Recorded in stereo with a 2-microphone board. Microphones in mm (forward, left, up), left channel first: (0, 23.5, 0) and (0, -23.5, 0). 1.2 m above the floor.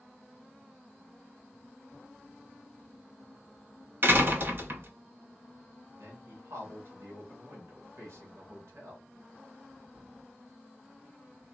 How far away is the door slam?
About 0.7 m.